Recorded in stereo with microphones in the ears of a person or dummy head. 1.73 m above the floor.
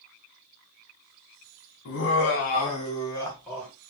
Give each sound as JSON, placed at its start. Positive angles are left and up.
{"t": 1.9, "sound": "laughter", "side_deg": 60, "distance_m": 0.8}